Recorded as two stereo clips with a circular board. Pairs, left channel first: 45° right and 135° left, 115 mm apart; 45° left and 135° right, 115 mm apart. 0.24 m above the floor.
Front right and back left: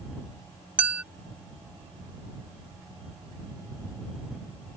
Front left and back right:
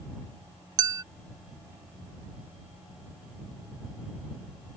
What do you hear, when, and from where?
0.8 s a clink: 155° right